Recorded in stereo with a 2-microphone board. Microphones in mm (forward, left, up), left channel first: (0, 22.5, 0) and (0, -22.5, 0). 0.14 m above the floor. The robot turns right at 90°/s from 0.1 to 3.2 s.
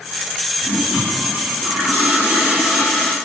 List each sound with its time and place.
0.6 s a toilet flushing: 160° left, 3.5 m; by 3.1 s 30° left, 3.5 m